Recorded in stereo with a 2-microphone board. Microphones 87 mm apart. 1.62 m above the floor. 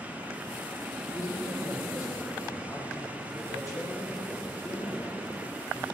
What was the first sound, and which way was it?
A man speaking, 40° left (ahead or behind).